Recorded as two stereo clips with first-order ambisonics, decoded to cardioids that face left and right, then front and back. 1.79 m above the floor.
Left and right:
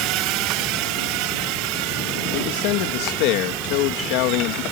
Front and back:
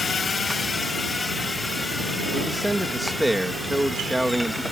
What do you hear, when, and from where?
0.0 s a drone: 70° right; by 4.7 s 90° right
2.3 s a man speaking: 95° left